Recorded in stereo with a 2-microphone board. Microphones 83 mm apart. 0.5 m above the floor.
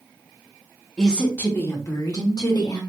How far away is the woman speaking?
About 0.8 m.